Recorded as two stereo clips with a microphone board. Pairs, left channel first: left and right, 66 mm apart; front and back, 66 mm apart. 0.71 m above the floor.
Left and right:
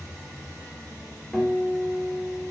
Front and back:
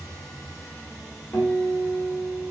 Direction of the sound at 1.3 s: Straight ahead.